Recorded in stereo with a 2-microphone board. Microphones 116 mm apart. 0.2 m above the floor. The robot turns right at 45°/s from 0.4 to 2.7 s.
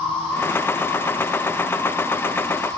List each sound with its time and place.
0.0 s an insect: 170° left, 3.5 m; by 2.8 s 90° right, 3.5 m